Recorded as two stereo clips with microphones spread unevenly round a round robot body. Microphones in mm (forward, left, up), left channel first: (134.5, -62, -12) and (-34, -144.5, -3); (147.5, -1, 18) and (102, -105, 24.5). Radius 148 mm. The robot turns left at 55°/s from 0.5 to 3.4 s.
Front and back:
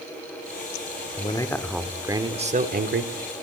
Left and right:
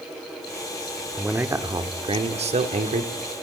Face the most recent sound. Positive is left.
turn(degrees=-155)